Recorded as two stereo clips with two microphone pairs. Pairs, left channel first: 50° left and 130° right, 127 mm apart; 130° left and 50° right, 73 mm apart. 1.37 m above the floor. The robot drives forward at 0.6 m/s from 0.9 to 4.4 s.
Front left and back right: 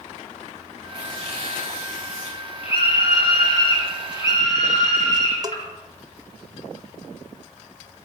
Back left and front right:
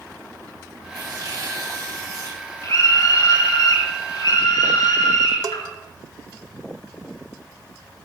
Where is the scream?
95° left, 4.5 m; by 5.7 s 110° left, 4.5 m.